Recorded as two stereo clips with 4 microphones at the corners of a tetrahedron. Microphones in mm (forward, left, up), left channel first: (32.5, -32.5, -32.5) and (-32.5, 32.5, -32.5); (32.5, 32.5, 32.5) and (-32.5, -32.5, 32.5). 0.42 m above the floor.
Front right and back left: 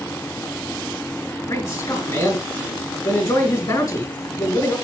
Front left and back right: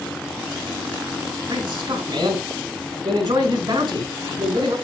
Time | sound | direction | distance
1.5 | a man speaking | 90° right | 4.5 m